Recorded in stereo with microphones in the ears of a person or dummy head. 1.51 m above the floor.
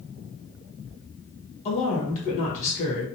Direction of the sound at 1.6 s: 40° left (ahead or behind).